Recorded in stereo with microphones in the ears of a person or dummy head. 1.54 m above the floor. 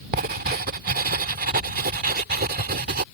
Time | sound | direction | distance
0.1 | writing | 45° right (ahead or behind) | ?